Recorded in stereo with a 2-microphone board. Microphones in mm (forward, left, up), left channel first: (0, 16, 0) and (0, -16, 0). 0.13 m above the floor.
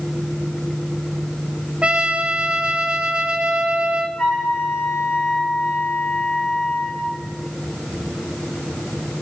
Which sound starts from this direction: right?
A trumpet, at 1.8 s.